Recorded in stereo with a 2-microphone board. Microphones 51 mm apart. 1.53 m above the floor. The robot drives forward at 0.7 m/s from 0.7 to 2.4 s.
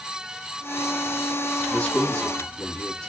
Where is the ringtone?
I don't hear a ringtone.